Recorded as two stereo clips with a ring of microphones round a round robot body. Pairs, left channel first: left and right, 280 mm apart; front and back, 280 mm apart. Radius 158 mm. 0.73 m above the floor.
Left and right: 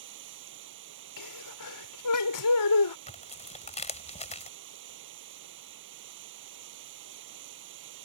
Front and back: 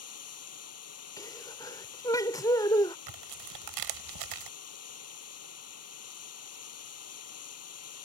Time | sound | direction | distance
0.0 | running water | 35° right | ?
1.2 | a sneeze | 80° left | ?
3.1 | tearing paper | 155° left | ?